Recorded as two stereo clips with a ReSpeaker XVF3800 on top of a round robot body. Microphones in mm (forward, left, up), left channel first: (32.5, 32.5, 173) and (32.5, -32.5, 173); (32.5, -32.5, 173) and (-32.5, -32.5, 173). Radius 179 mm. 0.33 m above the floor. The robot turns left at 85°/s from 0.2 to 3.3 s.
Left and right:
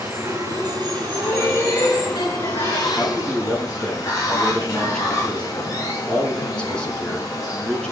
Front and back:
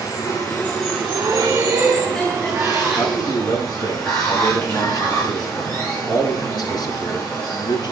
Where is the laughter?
175° right, 4.5 m; by 2.9 s 35° left, 4.5 m.